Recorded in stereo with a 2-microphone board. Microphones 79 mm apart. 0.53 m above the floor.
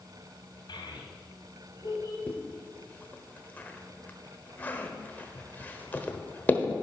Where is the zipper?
20° left (ahead or behind), 1.0 m.